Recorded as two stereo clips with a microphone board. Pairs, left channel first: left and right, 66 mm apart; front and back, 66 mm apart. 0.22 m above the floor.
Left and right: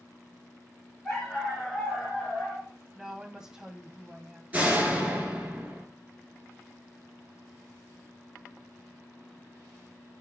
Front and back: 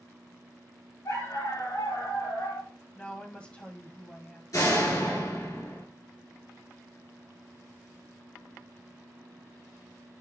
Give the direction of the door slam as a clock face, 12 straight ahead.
1 o'clock.